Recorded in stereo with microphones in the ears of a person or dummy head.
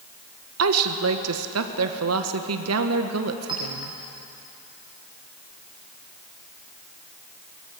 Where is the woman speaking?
75° right (ahead or behind), 1.4 m.